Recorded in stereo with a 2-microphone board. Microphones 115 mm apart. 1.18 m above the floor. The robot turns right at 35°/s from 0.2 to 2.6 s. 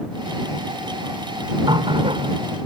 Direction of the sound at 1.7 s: 45° right (ahead or behind).